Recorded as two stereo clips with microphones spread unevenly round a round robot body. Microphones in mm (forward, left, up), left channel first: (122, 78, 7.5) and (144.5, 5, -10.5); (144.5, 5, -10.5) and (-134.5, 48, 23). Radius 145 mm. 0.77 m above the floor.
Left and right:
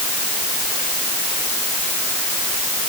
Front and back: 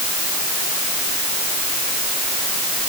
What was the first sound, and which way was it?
Only background noise.